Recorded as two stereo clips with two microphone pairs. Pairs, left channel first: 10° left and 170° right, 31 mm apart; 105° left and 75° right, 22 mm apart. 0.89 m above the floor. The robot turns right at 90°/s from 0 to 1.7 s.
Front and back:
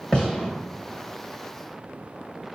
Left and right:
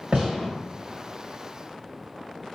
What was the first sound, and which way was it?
A gunshot, 55° right.